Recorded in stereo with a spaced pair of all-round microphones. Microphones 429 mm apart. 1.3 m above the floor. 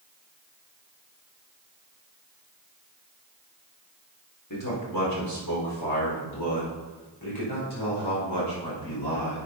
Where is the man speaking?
45° left (ahead or behind), 3.5 m; by 9.5 s 70° left (ahead or behind), 5.5 m.